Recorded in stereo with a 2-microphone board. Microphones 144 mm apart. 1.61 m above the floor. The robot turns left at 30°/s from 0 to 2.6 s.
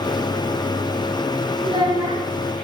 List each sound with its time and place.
1.6 s a child speaking: 40° right (ahead or behind), 0.9 m; by 2.2 s 25° right (ahead or behind), 0.9 m